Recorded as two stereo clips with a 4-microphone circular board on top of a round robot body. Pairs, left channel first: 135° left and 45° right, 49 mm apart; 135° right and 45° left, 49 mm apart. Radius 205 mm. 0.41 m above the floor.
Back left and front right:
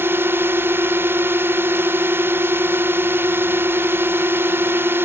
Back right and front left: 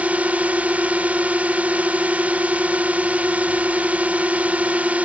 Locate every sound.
0.0 s a drone: 10° right